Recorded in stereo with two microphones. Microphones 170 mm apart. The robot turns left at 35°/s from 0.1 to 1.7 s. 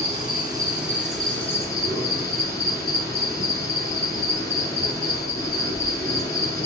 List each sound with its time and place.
0.0 s an insect: 145° right, 2.5 m; by 6.7 s 160° left, 2.5 m